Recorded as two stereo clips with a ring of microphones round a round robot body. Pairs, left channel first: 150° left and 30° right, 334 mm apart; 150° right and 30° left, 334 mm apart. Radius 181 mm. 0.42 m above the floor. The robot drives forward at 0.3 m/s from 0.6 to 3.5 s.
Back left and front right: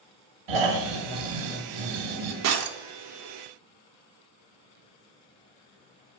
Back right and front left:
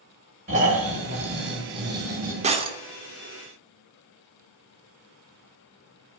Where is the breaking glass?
35° right, 0.7 m; by 2.8 s 40° right, 0.6 m.